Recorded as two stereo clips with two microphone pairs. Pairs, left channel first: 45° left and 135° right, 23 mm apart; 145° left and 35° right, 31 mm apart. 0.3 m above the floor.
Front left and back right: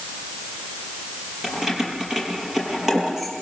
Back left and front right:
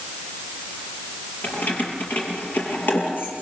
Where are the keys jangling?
150° left, 5 m.